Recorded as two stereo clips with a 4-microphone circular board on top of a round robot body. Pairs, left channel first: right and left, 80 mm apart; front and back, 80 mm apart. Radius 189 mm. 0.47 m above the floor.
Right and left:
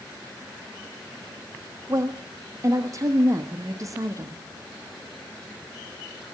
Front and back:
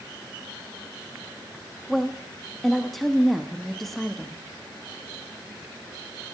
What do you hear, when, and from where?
1.9 s a woman speaking: 85° left, 1.3 m